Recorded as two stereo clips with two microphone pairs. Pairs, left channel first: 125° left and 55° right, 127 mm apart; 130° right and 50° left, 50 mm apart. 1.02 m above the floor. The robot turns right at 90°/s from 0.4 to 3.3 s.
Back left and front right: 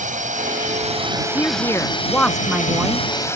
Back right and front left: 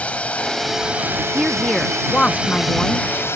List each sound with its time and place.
0.0 s a drone: 65° right; by 3.4 s 165° right
1.4 s a woman speaking: 115° left; by 3.1 s 90° right